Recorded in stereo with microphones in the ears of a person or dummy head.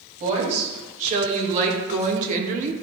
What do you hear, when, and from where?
0.2 s a woman speaking: 40° right (ahead or behind), 3.5 m; by 2.8 s 45° right (ahead or behind), 1.1 m